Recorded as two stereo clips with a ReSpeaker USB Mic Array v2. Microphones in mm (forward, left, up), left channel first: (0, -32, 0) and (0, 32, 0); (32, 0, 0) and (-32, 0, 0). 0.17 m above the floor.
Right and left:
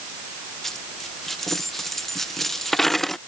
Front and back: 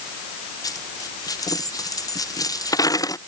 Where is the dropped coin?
5° right.